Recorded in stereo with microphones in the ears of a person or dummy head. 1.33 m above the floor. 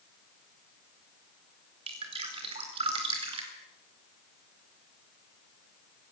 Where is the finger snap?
I don't hear a finger snap.